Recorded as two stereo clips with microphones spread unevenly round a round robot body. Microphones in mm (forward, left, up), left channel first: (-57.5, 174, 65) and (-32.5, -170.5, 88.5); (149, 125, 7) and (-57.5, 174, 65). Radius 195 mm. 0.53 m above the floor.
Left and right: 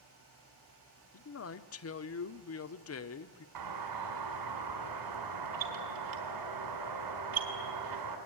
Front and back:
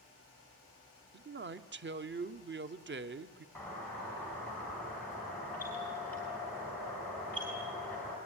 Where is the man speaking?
125° left, 1.2 m.